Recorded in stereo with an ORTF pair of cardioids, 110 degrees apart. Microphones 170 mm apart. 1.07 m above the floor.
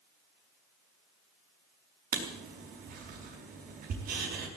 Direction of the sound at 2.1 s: 60° right.